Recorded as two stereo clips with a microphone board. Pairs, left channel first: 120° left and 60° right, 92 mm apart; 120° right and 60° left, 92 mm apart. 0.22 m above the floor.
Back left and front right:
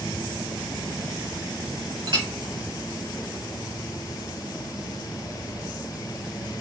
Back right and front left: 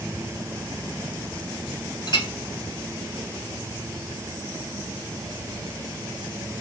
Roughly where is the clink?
Right.